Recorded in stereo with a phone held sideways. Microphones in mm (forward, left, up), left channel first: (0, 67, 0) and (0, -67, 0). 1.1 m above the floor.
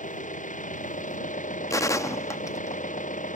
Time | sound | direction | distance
0.0 | an engine running | 75° left (ahead or behind) | ?
1.7 | a gunshot | 25° left (ahead or behind) | ?